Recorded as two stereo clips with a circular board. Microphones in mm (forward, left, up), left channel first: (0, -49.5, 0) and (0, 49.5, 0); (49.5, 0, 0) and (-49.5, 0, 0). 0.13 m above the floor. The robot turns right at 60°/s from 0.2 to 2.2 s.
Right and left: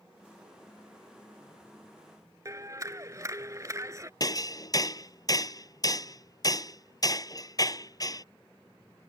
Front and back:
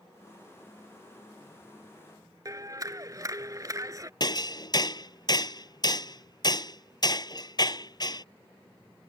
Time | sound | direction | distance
2.5 | a clap | 135° left | ?
4.2 | hammering | 40° right | ?